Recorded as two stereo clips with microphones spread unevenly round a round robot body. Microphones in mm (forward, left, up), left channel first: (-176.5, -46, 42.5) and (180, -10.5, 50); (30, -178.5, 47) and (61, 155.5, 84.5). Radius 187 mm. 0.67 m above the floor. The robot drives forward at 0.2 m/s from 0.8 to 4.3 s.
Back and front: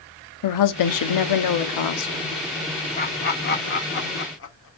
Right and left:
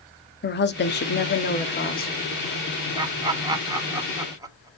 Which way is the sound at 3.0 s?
160° left.